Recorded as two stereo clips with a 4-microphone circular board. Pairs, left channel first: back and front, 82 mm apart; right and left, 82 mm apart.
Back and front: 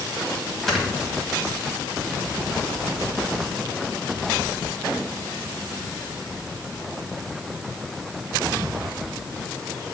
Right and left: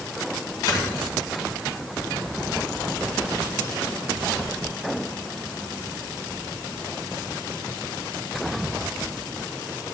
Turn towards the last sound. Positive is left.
turn(degrees=-95)